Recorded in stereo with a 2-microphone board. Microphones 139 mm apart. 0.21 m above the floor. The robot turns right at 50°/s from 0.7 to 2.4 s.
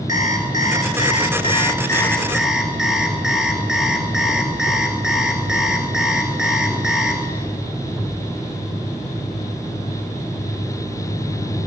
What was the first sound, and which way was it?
An alarm clock, 100° left.